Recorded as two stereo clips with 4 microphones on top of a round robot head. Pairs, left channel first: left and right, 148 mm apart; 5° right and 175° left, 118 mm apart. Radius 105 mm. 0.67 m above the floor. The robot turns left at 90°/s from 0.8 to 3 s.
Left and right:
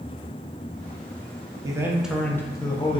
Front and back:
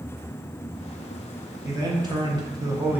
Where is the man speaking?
135° right, 0.7 m; by 3.0 s 100° left, 0.7 m.